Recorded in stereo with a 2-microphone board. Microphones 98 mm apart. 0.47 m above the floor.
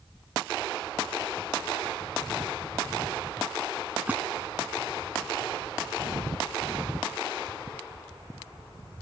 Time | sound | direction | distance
4.1 | a splash | 15° right (ahead or behind) | ?